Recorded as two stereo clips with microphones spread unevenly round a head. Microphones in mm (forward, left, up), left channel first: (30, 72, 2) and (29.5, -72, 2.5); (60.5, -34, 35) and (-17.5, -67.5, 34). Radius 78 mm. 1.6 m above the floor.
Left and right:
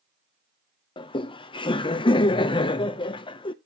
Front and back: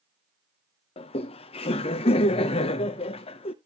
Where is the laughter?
30° left, 0.7 m.